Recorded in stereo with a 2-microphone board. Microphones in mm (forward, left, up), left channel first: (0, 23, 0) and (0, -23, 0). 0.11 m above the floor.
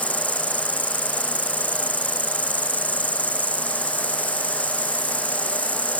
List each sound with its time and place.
0.0 s an insect: 40° right (ahead or behind)